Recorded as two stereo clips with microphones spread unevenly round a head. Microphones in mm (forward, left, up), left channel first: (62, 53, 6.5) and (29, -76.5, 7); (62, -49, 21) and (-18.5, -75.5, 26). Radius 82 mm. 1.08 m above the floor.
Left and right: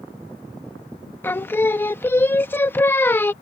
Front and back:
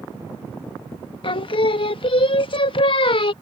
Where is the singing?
Straight ahead.